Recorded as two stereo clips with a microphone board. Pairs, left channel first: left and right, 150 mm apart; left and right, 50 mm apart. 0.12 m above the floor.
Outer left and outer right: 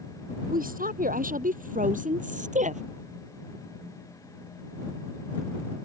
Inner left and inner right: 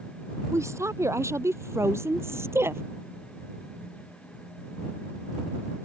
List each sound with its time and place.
0.5 s a woman speaking: 70° right (ahead or behind); by 2.8 s 55° right (ahead or behind)